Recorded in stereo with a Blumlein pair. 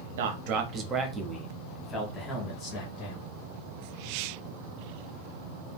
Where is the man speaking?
55° right, 0.7 m; by 3.3 s 30° left, 1.7 m.